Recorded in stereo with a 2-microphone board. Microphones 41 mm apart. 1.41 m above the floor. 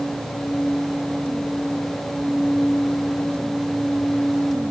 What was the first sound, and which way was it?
Only background noise.